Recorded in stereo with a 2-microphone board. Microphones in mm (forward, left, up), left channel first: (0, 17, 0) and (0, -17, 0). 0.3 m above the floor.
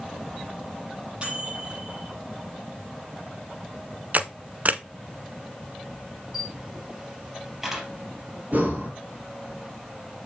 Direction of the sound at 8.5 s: 55° right (ahead or behind).